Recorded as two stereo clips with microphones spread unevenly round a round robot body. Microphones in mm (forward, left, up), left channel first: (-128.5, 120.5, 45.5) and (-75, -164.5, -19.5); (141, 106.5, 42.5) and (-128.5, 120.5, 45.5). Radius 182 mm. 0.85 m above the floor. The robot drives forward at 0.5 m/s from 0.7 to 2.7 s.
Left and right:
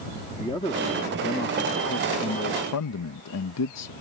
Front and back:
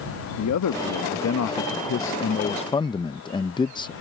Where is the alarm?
No alarm in this recording.